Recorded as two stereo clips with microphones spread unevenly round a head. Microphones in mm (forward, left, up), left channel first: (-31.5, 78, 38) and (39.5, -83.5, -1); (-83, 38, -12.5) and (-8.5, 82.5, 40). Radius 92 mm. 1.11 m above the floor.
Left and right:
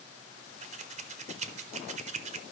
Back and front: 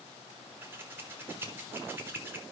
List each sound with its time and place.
0.6 s scissors: 65° right, 0.8 m